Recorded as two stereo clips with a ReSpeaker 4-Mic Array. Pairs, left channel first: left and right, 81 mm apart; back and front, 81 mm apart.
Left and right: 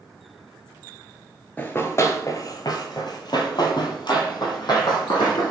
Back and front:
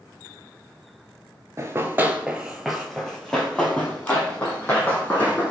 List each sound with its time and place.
1.6 s running footsteps: 30° left, 0.7 m; by 5.5 s 120° left, 2 m